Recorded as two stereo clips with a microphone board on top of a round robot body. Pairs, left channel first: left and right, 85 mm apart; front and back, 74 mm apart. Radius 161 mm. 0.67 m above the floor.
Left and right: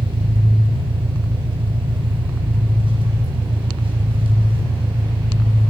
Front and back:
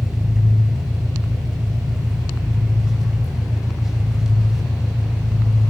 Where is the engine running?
95° right, 4.5 m.